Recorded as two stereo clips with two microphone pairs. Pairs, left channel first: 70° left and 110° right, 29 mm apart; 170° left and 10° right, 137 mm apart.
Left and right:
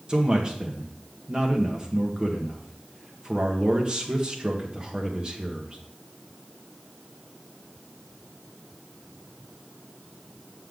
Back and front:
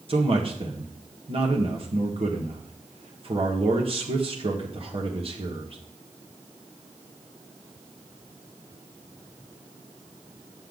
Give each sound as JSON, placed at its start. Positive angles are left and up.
{"t": 0.1, "sound": "a man speaking", "azimuth_deg": -50, "distance_m": 1.6}